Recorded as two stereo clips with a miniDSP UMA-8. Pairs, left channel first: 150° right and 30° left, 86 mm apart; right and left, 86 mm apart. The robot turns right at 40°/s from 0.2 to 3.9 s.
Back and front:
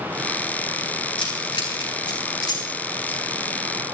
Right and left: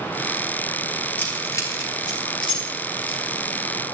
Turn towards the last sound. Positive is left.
turn(degrees=-50)